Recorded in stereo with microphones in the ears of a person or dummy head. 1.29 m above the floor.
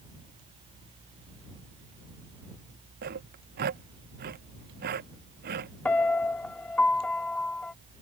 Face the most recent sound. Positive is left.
turn(degrees=10)  # may be behind; listen again after turning